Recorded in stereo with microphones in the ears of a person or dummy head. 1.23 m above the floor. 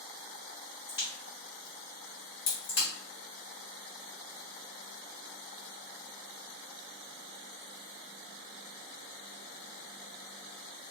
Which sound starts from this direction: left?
A crack, at 0.9 s.